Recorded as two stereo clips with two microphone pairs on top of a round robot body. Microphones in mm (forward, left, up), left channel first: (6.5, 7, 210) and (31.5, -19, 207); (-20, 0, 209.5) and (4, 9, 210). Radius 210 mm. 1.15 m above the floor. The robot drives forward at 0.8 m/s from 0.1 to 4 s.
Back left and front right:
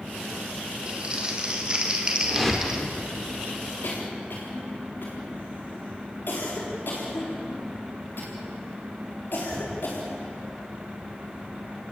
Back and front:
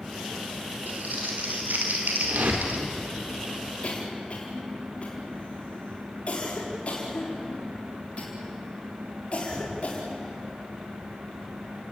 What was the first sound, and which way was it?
Crumpling, 15° left.